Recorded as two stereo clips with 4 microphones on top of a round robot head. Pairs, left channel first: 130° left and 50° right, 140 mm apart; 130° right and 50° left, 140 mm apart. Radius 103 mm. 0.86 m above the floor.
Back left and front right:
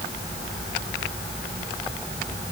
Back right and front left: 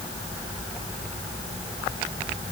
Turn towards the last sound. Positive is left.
No sound to turn to.